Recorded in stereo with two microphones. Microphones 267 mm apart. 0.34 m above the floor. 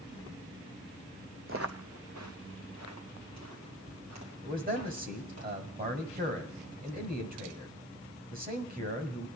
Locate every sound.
1.5 s footsteps: 50° right (ahead or behind), 0.8 m; by 5.4 s 75° right (ahead or behind), 5.5 m
4.4 s a man speaking: 35° right (ahead or behind), 1.7 m